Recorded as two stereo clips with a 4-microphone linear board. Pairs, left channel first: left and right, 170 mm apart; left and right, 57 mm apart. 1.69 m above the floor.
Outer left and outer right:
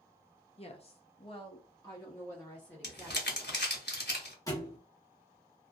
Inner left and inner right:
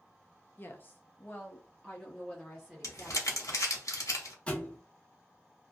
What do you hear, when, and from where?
0.6 s a woman speaking: 35° left (ahead or behind), 0.6 m; by 3.6 s 5° left (ahead or behind), 1.4 m
2.8 s crumpling: 80° left, 0.8 m
4.5 s a thud: 20° left (ahead or behind), 1.0 m